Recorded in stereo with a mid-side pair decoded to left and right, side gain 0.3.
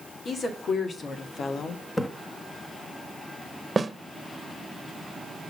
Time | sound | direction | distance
0.2 | a woman speaking | 70° left | 2.5 m
2.0 | a splash | 30° left | 1.7 m
3.8 | a snare drum | 35° right | 1.3 m